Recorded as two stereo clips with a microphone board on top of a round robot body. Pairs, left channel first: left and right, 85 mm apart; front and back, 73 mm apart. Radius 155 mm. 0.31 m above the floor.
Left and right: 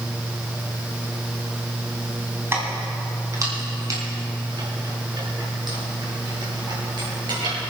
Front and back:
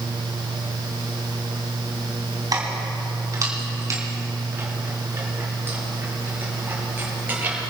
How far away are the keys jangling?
About 3 m.